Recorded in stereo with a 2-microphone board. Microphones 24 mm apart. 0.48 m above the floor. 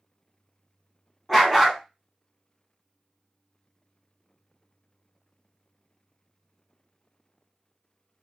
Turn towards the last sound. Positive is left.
turn(degrees=0)  # may be behind; listen again after turning